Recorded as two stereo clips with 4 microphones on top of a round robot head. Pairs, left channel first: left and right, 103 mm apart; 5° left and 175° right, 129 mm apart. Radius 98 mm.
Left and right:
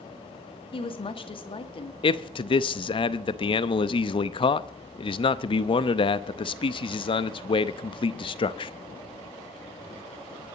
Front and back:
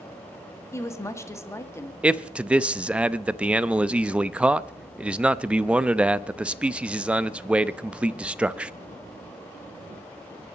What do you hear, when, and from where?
0.7 s a woman speaking: 70° left, 1.8 m
2.0 s a man speaking: 105° left, 0.7 m